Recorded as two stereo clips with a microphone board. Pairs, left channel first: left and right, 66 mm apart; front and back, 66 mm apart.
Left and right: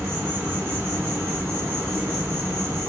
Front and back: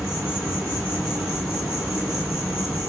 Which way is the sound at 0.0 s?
105° right.